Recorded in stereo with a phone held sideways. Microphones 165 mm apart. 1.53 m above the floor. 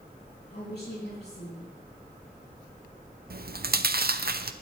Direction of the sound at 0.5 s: 80° left.